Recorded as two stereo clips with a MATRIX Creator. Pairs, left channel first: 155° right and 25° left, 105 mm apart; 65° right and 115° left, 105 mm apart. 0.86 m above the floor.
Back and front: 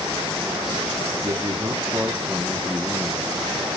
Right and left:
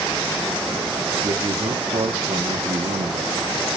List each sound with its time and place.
1.2 s a man speaking: 65° left, 1.6 m; by 3.5 s 125° left, 1.5 m